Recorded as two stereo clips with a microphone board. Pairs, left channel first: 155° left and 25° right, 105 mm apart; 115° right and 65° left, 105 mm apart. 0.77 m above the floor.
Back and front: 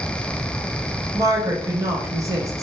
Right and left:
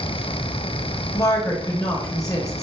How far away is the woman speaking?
About 0.8 m.